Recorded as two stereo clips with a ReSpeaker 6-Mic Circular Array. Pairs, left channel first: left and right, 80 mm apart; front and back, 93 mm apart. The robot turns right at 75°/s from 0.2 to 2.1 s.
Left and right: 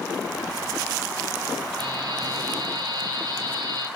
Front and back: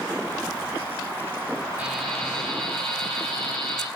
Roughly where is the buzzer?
Right.